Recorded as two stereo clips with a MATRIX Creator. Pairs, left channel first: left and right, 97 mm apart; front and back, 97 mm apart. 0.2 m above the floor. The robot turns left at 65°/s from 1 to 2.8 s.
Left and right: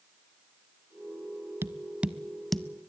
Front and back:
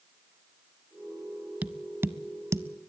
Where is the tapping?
125° right, 0.7 m; by 2.9 s 160° left, 0.7 m.